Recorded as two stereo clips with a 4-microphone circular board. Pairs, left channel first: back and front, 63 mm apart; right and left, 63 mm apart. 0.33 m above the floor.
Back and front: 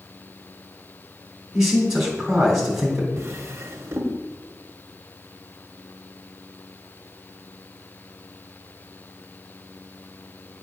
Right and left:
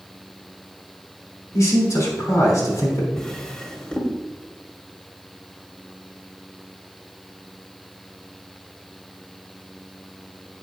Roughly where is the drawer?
Ahead.